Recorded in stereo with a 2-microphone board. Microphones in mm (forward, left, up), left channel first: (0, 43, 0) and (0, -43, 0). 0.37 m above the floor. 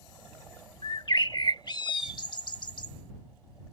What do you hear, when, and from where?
0.8 s a bird: 65° left (ahead or behind)